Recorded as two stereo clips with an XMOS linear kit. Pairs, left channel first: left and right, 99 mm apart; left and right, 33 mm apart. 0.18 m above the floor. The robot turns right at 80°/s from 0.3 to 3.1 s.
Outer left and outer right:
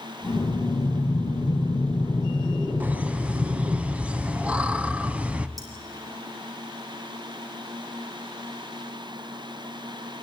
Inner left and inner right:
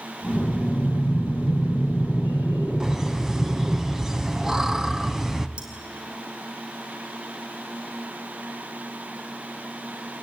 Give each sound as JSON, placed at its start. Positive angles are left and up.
{"t": 0.3, "sound": "breathing", "azimuth_deg": 0, "distance_m": 5.0}
{"t": 2.8, "sound": "laughter", "side_deg": -15, "distance_m": 1.0}
{"t": 5.6, "sound": "cutlery clinking", "side_deg": -40, "distance_m": 4.5}